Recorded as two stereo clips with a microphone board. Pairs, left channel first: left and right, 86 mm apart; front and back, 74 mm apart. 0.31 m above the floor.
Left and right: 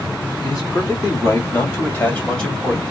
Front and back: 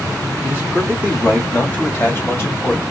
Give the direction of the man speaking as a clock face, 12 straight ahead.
10 o'clock.